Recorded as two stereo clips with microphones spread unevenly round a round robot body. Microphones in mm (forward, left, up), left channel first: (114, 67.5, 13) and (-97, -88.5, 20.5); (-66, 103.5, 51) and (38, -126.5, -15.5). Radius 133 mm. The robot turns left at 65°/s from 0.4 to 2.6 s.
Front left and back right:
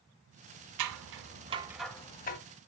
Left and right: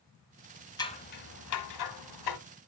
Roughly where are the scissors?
Behind.